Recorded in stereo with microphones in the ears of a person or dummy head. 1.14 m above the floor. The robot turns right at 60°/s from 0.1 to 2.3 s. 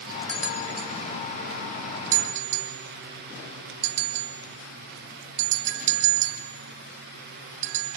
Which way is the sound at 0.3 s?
10° left (ahead or behind).